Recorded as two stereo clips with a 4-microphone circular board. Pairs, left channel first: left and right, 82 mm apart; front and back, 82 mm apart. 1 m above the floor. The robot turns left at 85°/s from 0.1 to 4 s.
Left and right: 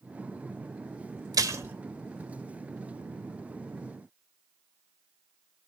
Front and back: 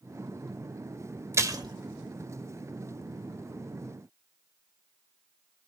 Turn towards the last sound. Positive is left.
turn(degrees=10)